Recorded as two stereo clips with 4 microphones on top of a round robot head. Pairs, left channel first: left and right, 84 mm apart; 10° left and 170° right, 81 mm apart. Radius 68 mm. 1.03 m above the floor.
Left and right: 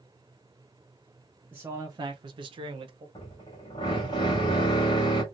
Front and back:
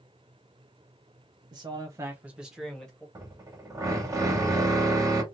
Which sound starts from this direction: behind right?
A man speaking, at 1.5 s.